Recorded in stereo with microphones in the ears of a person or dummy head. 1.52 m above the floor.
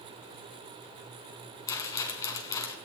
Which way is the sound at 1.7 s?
20° left (ahead or behind).